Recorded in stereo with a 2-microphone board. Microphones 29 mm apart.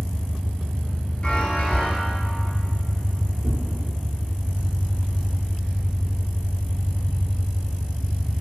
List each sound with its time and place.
0.0 s an engine running: 20° left (ahead or behind), 1.7 m
1.2 s a chime: 40° left (ahead or behind), 0.6 m
3.4 s tearing paper: 55° right (ahead or behind), 1.0 m